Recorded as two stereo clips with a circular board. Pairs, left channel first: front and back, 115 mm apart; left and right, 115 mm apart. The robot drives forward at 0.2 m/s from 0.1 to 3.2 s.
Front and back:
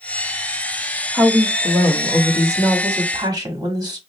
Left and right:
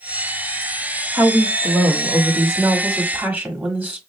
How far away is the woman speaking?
About 1.1 m.